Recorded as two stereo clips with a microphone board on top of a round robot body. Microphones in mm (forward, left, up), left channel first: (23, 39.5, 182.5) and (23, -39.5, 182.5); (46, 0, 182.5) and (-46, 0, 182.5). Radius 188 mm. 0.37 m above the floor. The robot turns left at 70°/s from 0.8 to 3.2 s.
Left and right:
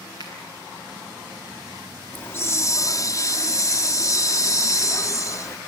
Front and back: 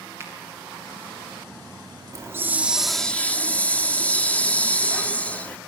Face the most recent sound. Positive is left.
turn(degrees=70)